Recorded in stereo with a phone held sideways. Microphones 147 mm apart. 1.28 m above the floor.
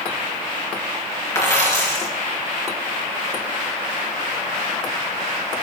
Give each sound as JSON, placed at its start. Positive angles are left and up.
{"t": 1.4, "sound": "a dropped coin", "side_deg": 20, "distance_m": 4.0}